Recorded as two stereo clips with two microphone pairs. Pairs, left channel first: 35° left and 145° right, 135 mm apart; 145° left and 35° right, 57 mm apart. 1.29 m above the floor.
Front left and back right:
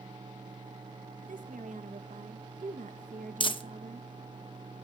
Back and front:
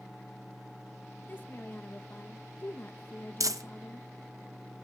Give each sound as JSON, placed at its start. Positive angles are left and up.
{"t": 1.2, "sound": "a woman speaking", "azimuth_deg": -160, "distance_m": 1.4}
{"t": 3.4, "sound": "crumpling", "azimuth_deg": -15, "distance_m": 0.8}